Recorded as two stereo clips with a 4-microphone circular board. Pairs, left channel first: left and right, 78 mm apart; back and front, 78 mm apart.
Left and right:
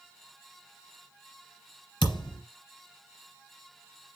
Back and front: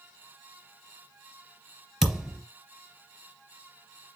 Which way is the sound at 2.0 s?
85° left.